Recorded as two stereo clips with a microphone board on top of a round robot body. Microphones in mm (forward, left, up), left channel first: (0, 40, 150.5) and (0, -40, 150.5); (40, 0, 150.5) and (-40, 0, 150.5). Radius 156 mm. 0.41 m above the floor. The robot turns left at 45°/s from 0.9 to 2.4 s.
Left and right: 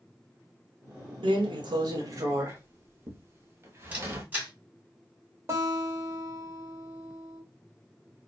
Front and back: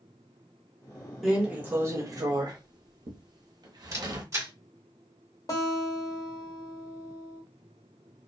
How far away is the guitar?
About 1.3 m.